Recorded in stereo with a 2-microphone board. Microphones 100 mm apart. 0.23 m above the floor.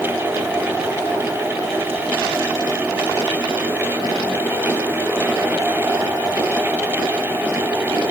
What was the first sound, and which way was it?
Only background noise.